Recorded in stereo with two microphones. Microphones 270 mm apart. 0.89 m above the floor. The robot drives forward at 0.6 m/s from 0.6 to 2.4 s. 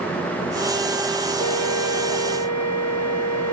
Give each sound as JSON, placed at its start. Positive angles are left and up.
{"t": 1.4, "sound": "a flute", "side_deg": 75}